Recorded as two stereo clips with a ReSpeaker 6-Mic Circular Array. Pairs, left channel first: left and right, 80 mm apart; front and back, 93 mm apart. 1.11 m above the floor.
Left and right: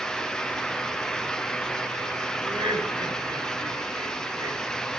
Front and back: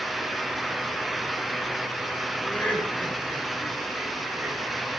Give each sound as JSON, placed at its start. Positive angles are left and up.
{"t": 2.4, "sound": "laughter", "azimuth_deg": -75, "distance_m": 5.0}